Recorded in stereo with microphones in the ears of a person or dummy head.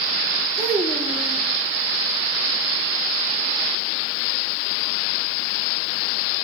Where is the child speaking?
Centre (ahead or behind), 1.2 m.